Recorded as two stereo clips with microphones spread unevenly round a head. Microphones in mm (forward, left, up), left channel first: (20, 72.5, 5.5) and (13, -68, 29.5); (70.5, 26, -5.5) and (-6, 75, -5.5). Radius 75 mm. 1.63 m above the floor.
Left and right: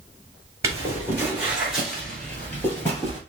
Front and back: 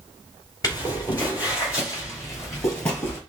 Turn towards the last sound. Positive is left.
turn(degrees=15)